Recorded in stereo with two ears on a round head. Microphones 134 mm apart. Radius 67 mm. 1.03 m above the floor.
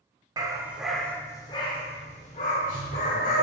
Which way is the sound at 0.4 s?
25° right (ahead or behind).